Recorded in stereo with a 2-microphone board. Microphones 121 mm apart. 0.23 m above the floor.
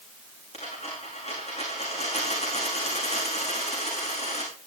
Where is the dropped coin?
60° left (ahead or behind), 7.5 m.